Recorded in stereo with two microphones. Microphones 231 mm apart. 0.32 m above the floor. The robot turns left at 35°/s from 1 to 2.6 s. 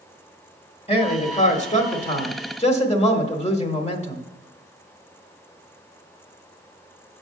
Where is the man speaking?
120° left, 1.1 m; by 4.2 s 65° left, 1.1 m.